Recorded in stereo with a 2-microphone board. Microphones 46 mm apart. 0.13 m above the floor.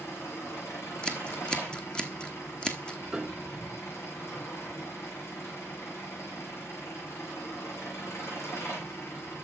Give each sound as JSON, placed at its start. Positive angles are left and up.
{"t": 0.0, "sound": "an engine running", "side_deg": 80, "distance_m": 5.5}
{"t": 1.0, "sound": "scissors", "side_deg": 20, "distance_m": 1.1}
{"t": 3.1, "sound": "a piano", "side_deg": -10, "distance_m": 1.0}